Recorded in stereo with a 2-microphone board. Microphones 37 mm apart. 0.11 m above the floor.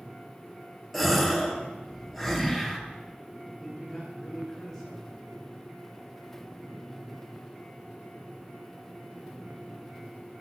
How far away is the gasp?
About 2.5 m.